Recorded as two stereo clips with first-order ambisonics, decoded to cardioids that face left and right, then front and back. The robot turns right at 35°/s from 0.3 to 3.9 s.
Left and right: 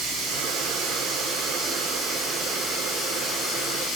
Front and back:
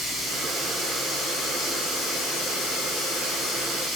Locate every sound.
0.0 s running water: 75° right, 6 m; by 4.0 s 50° left, 6 m